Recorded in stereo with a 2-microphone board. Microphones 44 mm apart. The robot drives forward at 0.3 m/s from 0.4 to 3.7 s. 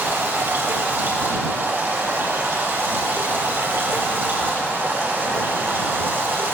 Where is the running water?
65° right (ahead or behind), 3 m; by 6.5 s 55° right (ahead or behind), 3.5 m.